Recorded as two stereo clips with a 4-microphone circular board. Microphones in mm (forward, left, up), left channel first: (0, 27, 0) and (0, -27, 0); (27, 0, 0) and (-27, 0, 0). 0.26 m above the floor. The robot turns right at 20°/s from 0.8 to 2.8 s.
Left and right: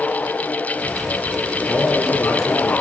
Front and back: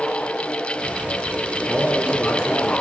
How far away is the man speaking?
About 5.5 m.